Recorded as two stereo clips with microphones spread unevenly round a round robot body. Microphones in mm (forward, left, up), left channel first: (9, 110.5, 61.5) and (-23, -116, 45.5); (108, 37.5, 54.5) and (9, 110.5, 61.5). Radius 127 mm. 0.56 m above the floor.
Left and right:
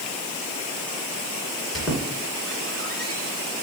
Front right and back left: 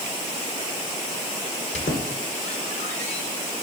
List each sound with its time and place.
1.7 s a squeak: 5° right, 2.5 m